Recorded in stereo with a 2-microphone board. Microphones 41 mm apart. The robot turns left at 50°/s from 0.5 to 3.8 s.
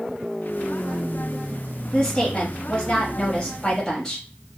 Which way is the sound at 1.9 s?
15° left (ahead or behind).